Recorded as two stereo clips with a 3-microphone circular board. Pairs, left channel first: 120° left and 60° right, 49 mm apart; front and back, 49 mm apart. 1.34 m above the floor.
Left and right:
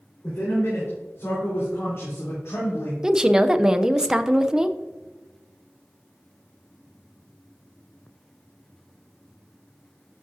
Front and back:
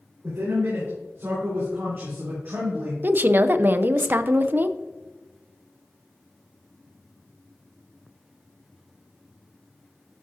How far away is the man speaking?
About 4.5 m.